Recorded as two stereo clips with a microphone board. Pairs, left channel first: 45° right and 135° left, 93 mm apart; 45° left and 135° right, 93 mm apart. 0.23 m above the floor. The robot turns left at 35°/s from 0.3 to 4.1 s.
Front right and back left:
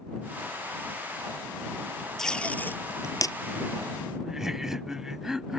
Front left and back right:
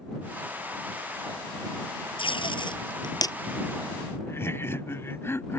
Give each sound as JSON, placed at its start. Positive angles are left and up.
{"t": 2.2, "sound": "tape being pulled", "azimuth_deg": 40}
{"t": 4.2, "sound": "laughter", "azimuth_deg": 55}